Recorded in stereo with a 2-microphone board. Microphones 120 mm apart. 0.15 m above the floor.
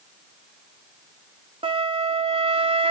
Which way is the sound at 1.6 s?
50° right (ahead or behind).